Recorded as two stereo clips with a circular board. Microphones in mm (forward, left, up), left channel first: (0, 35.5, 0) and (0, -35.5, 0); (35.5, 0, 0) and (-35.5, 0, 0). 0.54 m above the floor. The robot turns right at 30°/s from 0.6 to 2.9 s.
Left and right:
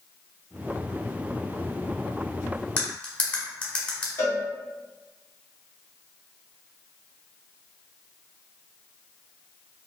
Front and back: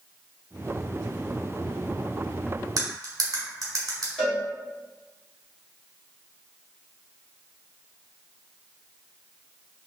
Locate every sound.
2.8 s cutlery clinking: 150° left, 1.2 m; by 4.1 s 155° left, 1.2 m
4.2 s a cowbell: 70° left, 1.6 m